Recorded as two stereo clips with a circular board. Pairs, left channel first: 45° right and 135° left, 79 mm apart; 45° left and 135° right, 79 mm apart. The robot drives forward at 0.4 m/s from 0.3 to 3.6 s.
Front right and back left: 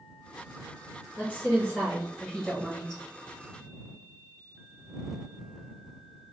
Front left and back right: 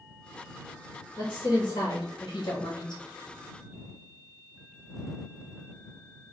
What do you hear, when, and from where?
1.2 s a woman speaking: 30° left, 1.4 m; by 3.0 s 60° left, 0.9 m